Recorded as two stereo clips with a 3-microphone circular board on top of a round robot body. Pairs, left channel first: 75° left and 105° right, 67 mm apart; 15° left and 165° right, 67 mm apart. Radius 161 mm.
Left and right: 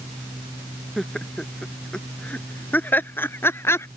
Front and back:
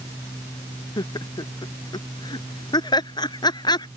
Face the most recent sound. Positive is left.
turn(degrees=25)